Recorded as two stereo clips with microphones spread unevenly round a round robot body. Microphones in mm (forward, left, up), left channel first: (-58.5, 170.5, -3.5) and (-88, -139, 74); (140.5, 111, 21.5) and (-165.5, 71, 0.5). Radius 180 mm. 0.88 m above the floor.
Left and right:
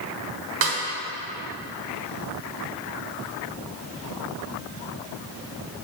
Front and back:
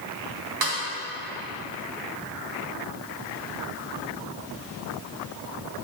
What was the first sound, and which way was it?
A snare drum, 140° right.